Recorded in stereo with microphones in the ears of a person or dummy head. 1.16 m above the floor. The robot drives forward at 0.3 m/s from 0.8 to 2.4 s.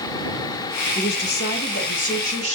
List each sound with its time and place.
0.9 s a woman speaking: 60° left (ahead or behind), 0.8 m; by 2.5 s 40° left (ahead or behind), 1.0 m